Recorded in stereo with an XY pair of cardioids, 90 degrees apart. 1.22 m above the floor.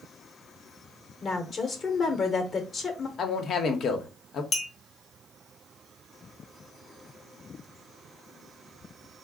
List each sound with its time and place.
1.2 s a woman speaking: 50° left, 1.0 m
3.2 s a man speaking: 65° left, 0.9 m
4.5 s a clink: 50° left, 1.0 m